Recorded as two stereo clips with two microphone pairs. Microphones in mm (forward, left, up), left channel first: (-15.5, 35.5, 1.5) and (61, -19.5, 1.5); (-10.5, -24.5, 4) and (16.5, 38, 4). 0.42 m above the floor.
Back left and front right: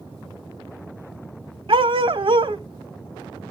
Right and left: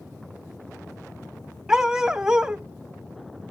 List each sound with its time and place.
1.7 s a dog barking: 15° right, 0.6 m